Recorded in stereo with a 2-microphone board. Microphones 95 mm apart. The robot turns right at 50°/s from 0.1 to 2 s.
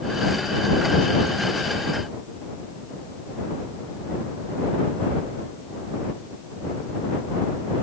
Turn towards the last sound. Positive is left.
No sound to turn to.